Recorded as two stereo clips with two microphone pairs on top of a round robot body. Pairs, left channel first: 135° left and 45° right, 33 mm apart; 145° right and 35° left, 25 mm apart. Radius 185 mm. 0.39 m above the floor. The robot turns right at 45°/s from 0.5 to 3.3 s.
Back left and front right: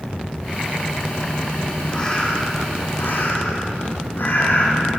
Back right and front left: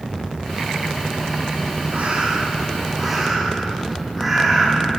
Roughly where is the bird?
Ahead left.